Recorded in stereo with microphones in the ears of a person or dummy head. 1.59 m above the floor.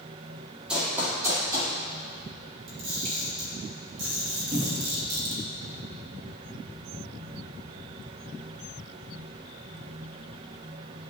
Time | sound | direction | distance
0.7 | running footsteps | 5° right (ahead or behind) | 2.5 m
2.7 | a camera shutter | 45° right (ahead or behind) | 1.9 m
4.5 | a cupboard door | 20° right (ahead or behind) | 1.2 m